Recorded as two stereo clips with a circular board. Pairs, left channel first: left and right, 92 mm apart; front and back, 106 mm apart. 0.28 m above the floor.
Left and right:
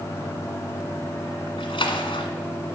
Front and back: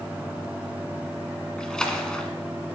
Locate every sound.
1.6 s a splash: 80° left, 1.3 m